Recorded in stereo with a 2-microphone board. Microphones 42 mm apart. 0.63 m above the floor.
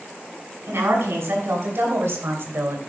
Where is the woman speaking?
80° right, 5 m; by 2.8 s 70° right (ahead or behind), 2.5 m.